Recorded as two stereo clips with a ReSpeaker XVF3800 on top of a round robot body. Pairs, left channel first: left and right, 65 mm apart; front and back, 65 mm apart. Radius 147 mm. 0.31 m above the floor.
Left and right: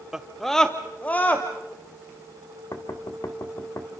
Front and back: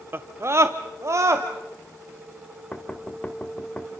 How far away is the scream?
About 1.1 m.